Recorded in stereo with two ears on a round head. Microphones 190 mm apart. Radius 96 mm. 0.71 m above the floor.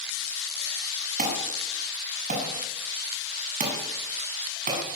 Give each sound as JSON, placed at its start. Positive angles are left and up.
{"t": 1.2, "sound": "an alarm", "side_deg": -35, "distance_m": 7.5}